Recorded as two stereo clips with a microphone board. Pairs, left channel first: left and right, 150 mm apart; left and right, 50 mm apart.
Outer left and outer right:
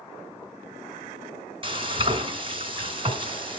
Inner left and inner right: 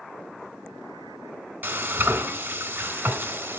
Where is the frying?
35° right (ahead or behind), 3 m.